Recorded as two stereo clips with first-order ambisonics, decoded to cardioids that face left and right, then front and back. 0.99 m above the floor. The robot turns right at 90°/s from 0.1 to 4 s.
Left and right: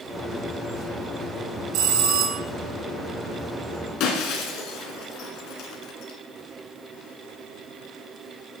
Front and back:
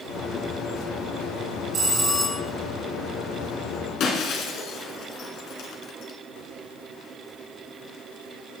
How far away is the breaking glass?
About 2.5 m.